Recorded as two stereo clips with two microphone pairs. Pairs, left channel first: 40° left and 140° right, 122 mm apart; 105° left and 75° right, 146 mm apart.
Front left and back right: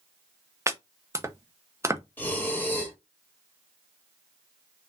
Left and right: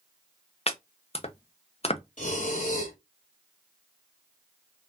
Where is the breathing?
115° left, 1.6 m.